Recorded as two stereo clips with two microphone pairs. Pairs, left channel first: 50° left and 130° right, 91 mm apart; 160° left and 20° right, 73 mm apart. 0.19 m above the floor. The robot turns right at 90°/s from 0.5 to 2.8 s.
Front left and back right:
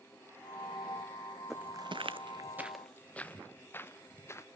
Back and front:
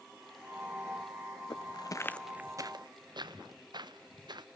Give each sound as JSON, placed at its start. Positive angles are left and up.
{"t": 1.5, "sound": "footsteps", "azimuth_deg": 145, "distance_m": 0.6}